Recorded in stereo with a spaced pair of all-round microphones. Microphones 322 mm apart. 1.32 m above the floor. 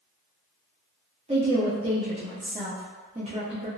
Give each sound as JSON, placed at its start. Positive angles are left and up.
{"t": 1.3, "sound": "a woman speaking", "side_deg": -20, "distance_m": 0.6}